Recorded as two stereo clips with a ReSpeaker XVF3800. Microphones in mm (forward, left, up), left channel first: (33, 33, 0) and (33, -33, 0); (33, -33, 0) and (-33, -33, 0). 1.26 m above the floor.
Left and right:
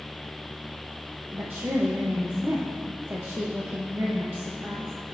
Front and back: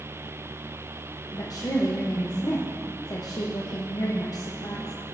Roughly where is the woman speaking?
Ahead right.